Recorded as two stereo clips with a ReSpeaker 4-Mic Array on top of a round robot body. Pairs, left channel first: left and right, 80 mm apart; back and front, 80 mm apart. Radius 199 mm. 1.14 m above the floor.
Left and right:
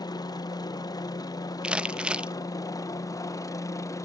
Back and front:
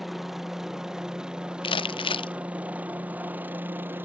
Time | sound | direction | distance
0.0 | a helicopter | 85° left | ?
1.6 | crumpling | 170° right | ?